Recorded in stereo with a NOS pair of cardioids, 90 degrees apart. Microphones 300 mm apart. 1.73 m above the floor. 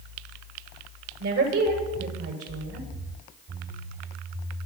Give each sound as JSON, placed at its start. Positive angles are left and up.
{"t": 1.2, "sound": "a woman speaking", "azimuth_deg": -50, "distance_m": 8.5}